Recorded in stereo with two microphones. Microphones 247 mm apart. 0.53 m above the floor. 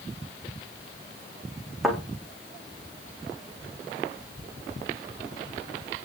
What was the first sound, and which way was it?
A thud, centre (ahead or behind).